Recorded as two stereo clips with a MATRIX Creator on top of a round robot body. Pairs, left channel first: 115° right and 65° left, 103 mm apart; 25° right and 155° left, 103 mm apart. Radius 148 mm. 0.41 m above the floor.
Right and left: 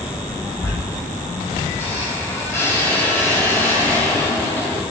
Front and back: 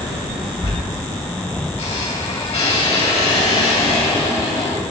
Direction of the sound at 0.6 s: 45° right.